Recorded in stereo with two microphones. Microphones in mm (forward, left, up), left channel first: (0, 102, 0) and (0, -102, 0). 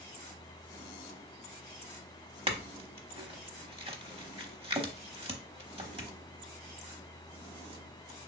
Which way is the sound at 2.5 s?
30° right (ahead or behind).